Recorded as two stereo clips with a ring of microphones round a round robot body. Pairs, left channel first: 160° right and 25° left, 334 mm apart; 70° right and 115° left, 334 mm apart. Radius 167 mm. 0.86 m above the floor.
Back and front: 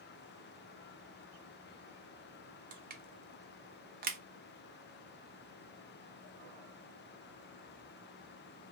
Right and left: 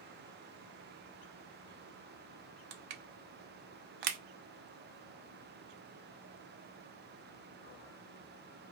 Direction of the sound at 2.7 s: 90° left.